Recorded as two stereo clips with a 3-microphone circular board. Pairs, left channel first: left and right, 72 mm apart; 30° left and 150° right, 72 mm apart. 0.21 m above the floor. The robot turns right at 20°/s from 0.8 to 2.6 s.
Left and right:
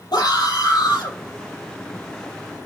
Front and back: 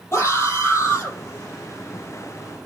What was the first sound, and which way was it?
A scream, 80° left.